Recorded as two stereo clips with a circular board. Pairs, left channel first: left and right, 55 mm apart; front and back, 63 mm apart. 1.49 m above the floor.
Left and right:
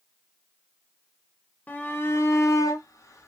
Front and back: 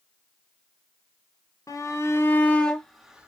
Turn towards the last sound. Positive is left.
turn(degrees=105)